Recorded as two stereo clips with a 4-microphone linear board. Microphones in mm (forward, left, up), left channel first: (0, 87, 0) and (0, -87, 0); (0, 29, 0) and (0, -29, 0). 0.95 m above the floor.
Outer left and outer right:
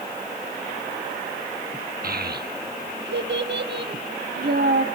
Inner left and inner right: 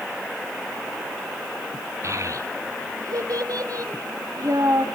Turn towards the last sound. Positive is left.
turn(degrees=-65)  # may be behind; listen again after turning